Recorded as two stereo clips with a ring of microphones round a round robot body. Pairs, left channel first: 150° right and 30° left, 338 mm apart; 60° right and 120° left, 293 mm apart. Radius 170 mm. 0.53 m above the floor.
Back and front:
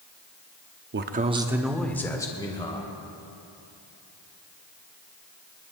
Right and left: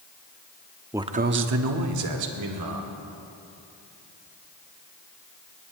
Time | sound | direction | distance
0.9 | a man speaking | 45° left | 0.7 m